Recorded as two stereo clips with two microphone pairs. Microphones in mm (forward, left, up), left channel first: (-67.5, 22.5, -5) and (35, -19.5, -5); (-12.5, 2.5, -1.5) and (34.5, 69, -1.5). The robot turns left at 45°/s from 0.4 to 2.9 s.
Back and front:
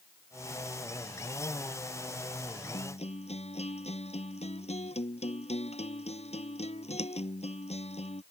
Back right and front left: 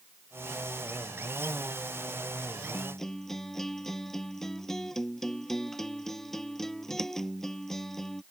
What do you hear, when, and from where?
2.7 s a guitar: 160° left; by 8.2 s 150° left